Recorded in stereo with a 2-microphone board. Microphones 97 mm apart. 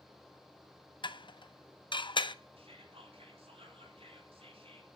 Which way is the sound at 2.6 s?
80° right.